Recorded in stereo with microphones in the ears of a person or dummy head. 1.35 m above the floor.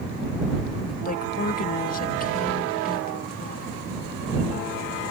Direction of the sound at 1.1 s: 45° left (ahead or behind).